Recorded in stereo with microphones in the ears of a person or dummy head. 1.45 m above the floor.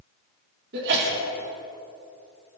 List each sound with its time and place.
0.7 s a sneeze: 65° right (ahead or behind), 4 m